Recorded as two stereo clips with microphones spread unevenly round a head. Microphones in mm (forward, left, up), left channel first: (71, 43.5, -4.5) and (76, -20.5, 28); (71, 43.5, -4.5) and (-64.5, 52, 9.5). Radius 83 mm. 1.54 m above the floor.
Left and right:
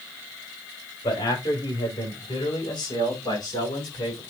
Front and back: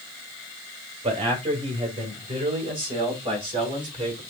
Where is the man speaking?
130° left, 5.5 m; by 4.2 s 125° left, 7 m.